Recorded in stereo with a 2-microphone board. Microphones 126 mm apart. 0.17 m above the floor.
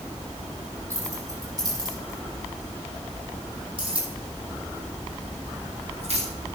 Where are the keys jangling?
25° right (ahead or behind), 5 m; by 6.3 s 60° right (ahead or behind), 6 m.